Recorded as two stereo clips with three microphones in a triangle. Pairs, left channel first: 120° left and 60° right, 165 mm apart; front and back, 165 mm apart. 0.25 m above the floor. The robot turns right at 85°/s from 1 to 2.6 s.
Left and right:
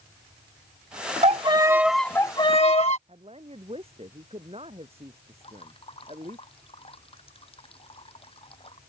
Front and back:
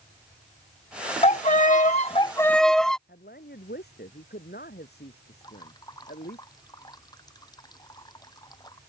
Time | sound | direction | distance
1.2 | a violin | 30° right | ?
3.1 | a woman speaking | 5° right | ?
5.4 | dripping | 65° left | ?